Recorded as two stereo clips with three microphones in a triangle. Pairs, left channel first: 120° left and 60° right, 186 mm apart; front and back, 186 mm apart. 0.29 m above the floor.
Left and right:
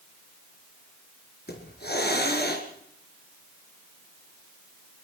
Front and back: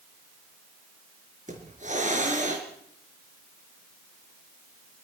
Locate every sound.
1.5 s a hiss: 135° left, 4 m